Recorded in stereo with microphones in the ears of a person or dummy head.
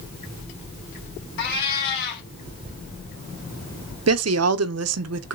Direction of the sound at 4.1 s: 80° right.